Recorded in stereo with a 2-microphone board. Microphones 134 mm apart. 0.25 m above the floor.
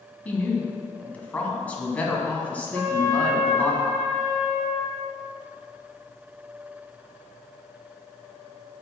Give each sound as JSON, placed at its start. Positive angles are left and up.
{"t": 0.2, "sound": "a woman speaking", "side_deg": 10, "distance_m": 2.5}
{"t": 2.7, "sound": "a trumpet", "side_deg": -35, "distance_m": 4.5}